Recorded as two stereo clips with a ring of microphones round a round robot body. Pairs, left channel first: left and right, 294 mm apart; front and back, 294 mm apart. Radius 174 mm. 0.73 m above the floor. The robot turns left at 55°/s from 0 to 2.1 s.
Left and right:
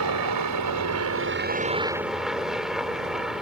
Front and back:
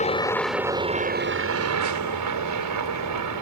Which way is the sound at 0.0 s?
65° right.